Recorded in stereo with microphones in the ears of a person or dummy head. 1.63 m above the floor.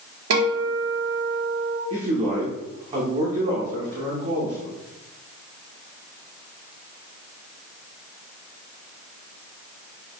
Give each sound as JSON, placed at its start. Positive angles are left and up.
{"t": 0.3, "sound": "a guitar", "side_deg": -75, "distance_m": 1.5}
{"t": 1.9, "sound": "a man speaking", "side_deg": -30, "distance_m": 1.0}